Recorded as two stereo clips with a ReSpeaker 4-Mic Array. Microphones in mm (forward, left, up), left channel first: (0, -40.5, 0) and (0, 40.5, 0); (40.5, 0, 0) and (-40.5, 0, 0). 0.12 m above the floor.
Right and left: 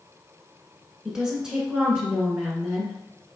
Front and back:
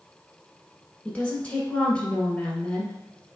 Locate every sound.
1.1 s a woman speaking: 30° left, 1.3 m